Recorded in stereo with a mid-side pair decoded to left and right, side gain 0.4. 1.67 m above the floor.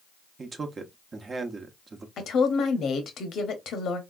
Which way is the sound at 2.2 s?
70° left.